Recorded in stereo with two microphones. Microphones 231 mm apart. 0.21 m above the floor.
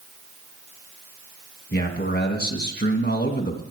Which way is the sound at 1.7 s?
45° left (ahead or behind).